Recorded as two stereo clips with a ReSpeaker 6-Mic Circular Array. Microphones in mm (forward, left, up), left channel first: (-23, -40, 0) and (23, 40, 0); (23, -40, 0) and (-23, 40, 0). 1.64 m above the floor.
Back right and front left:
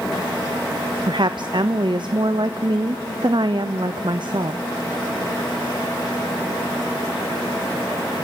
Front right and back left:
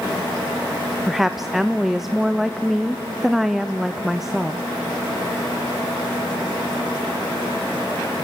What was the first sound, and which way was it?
A woman speaking, 30° left.